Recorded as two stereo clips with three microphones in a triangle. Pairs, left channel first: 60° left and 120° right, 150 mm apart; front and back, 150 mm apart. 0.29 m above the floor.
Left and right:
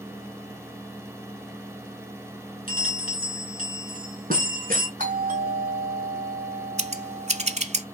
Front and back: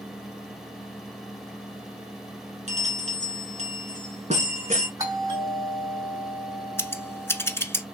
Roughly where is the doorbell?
Behind right.